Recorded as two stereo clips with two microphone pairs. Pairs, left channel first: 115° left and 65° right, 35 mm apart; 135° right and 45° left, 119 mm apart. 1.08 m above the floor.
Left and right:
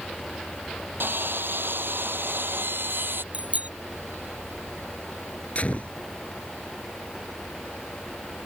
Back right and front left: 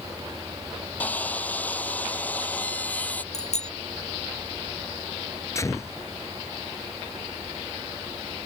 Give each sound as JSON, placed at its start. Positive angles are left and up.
{"t": 1.0, "sound": "sawing", "azimuth_deg": -55}
{"t": 3.3, "sound": "a bicycle bell", "azimuth_deg": -115}
{"t": 5.5, "sound": "a gunshot", "azimuth_deg": 160}